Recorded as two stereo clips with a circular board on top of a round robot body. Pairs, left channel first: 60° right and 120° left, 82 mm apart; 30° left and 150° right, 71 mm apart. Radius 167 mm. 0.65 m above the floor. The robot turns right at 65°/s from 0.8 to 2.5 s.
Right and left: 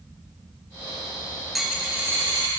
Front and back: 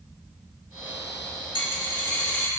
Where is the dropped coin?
30° left, 2.5 m; by 2.5 s 90° left, 2.5 m.